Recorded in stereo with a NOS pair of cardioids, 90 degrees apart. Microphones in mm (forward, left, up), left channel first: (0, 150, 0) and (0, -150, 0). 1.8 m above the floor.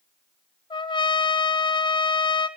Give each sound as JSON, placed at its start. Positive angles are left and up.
{"t": 0.7, "sound": "a trumpet", "azimuth_deg": 15, "distance_m": 1.2}